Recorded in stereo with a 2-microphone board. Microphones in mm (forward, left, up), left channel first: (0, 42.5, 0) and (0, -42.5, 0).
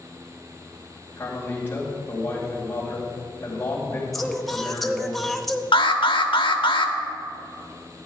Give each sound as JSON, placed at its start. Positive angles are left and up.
{"t": 1.2, "sound": "a man speaking", "side_deg": 25, "distance_m": 3.5}
{"t": 4.1, "sound": "singing", "side_deg": 0, "distance_m": 0.7}
{"t": 5.7, "sound": "an alarm", "side_deg": 80, "distance_m": 0.9}